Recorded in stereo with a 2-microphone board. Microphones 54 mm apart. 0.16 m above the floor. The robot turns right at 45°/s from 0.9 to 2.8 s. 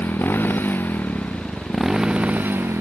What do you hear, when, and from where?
0.0 s a motorcycle: 145° left; by 2.8 s 130° right